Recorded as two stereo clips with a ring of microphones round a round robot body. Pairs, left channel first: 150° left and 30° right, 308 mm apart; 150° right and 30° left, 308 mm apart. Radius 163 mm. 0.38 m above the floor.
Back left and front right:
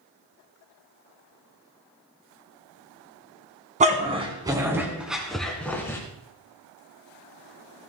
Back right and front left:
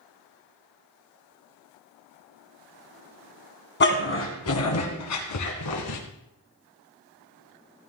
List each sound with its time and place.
3.8 s a dog barking: 95° right, 1.7 m; by 6.0 s 130° right, 2.5 m